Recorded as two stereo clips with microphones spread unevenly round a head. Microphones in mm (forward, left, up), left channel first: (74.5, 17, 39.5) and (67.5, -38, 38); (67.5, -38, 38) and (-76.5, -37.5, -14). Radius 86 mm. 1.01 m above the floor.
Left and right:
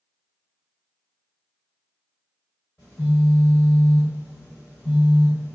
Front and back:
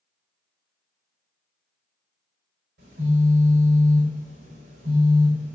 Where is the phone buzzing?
150° left, 1.0 m.